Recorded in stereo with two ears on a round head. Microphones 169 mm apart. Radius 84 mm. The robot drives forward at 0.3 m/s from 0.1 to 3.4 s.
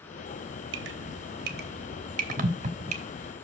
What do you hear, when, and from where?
0.7 s dripping: 75° right (ahead or behind), 0.8 m; by 3.0 s 40° right (ahead or behind), 1.1 m